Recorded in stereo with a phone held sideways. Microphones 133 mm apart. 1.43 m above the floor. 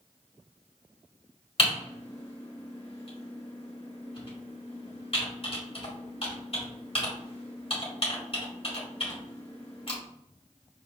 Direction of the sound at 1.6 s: 45° left (ahead or behind).